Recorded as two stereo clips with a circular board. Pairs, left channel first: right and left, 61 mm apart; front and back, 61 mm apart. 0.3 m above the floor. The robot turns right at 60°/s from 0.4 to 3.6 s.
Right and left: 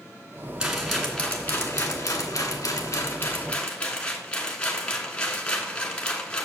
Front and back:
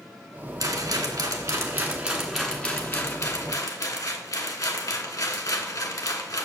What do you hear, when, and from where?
0.6 s a rattle: 165° left, 1.5 m; by 6.5 s 15° right, 1.5 m